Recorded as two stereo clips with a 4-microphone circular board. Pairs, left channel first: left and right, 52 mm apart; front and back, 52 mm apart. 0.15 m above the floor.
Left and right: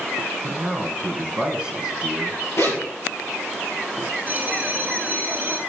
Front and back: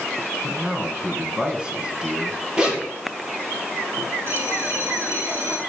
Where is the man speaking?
140° right, 1.2 m.